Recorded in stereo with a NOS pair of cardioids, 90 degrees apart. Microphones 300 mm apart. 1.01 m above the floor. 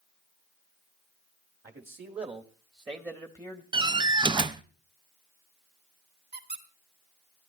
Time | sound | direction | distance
1.6 | a man speaking | 30° right | 2 m
3.7 | a door slam | 15° right | 0.5 m
6.3 | a squeak | 35° right | 2.5 m